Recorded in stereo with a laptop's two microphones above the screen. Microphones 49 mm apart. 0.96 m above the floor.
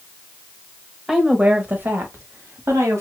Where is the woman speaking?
10° right (ahead or behind), 1.3 m; by 3.0 s 70° right (ahead or behind), 2 m.